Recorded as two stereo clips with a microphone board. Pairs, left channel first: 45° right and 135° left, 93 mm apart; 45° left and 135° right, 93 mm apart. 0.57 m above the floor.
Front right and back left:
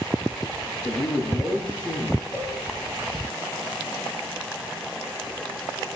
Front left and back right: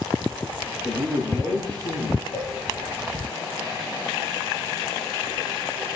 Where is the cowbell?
35° left, 4 m.